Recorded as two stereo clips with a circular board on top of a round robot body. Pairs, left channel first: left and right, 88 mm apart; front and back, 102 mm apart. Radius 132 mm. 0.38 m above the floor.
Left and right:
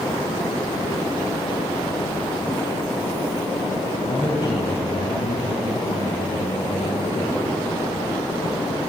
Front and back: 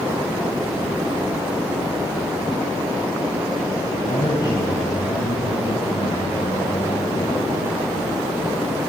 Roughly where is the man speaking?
Ahead left.